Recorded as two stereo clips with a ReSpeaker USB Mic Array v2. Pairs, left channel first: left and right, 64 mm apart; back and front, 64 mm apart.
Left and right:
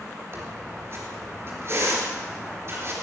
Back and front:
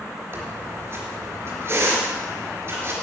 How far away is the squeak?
About 3.5 m.